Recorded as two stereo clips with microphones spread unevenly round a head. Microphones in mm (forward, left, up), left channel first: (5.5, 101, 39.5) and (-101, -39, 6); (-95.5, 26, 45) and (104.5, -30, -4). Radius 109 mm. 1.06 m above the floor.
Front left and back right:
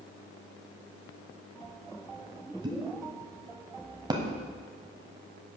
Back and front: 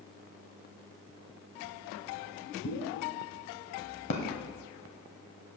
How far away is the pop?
About 1.5 m.